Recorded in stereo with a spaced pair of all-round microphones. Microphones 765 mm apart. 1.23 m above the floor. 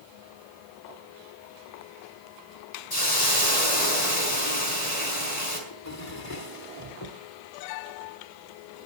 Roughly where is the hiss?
Left.